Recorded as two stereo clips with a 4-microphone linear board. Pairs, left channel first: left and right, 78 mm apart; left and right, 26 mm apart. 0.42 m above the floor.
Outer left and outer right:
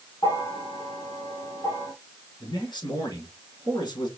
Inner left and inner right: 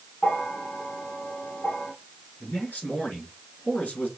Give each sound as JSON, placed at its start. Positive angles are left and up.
{"t": 0.2, "sound": "a bell", "side_deg": 65, "distance_m": 3.5}
{"t": 2.4, "sound": "a man speaking", "side_deg": 75, "distance_m": 3.0}